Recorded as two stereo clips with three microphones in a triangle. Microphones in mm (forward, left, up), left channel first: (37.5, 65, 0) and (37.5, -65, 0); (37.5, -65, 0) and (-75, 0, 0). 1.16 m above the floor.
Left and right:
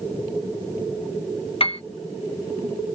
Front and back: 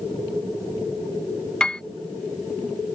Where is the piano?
50° left.